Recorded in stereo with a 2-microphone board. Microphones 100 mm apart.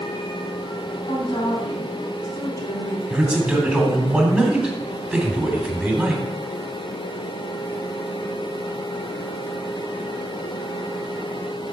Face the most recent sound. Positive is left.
turn(degrees=-10)  # may be behind; listen again after turning